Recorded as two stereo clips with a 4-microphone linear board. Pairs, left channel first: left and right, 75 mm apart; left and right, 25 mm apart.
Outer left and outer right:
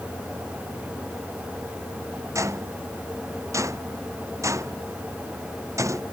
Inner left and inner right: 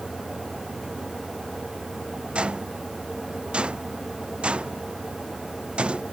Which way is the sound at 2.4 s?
45° right (ahead or behind).